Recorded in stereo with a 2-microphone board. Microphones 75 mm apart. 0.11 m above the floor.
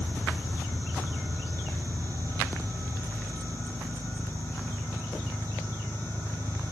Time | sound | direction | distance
0.0 | an engine running | 75° left (ahead or behind) | 8.5 m